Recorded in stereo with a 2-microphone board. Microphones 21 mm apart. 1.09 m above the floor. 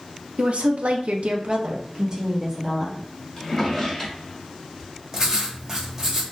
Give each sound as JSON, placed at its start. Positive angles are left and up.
{"t": 0.4, "sound": "a woman speaking", "side_deg": -60, "distance_m": 0.6}
{"t": 3.4, "sound": "a drawer", "side_deg": 10, "distance_m": 1.4}
{"t": 5.1, "sound": "writing", "side_deg": -20, "distance_m": 0.8}